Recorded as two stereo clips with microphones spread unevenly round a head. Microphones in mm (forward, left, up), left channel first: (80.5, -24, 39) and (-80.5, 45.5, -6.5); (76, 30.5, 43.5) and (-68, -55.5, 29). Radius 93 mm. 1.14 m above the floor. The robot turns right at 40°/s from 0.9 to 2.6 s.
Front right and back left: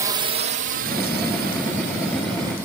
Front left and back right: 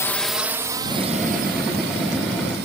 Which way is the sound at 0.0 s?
105° left.